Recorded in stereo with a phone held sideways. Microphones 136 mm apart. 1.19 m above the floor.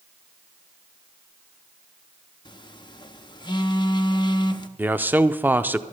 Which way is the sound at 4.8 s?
15° right (ahead or behind).